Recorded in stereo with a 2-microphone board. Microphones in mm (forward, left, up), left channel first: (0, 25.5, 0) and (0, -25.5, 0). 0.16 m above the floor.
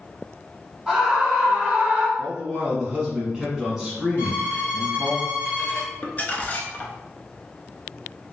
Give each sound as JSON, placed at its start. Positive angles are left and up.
{"t": 0.9, "sound": "a scream", "side_deg": 0, "distance_m": 1.4}
{"t": 2.2, "sound": "a man speaking", "side_deg": -10, "distance_m": 1.4}
{"t": 4.2, "sound": "a violin", "side_deg": 45, "distance_m": 2.0}
{"t": 6.0, "sound": "crumpling", "side_deg": 35, "distance_m": 0.5}